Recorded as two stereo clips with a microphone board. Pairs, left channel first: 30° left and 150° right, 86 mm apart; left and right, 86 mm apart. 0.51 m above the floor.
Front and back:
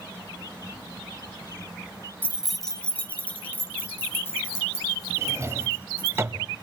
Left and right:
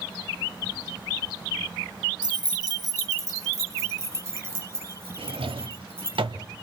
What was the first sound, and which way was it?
Keys jangling, 85° right.